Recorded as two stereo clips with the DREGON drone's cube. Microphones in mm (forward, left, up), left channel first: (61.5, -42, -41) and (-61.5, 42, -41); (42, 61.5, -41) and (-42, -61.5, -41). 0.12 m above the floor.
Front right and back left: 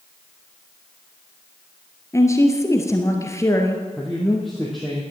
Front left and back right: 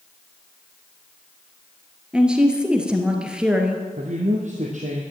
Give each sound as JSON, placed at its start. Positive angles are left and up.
{"t": 2.1, "sound": "a woman speaking", "azimuth_deg": -50, "distance_m": 1.7}
{"t": 4.0, "sound": "a man speaking", "azimuth_deg": -125, "distance_m": 2.5}